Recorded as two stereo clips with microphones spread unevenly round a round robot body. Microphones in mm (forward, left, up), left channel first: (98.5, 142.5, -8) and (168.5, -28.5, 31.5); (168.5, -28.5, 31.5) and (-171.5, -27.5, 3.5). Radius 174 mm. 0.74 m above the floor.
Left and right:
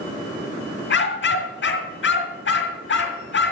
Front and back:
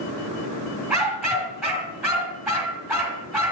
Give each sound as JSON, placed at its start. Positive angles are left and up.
{"t": 0.9, "sound": "a dog barking", "azimuth_deg": 90, "distance_m": 2.5}